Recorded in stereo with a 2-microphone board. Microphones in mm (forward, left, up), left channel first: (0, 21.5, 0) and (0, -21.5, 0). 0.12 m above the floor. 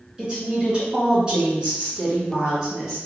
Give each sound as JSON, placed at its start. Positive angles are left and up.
{"t": 0.2, "sound": "a woman speaking", "side_deg": -25, "distance_m": 1.7}